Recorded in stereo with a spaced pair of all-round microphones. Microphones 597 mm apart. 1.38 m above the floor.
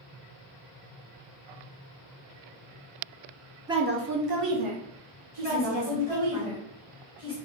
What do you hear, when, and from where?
3.7 s a woman speaking: 5° right (ahead or behind), 0.6 m; by 6.4 s 80° right, 1.7 m
5.4 s a woman speaking: 10° left (ahead or behind), 2 m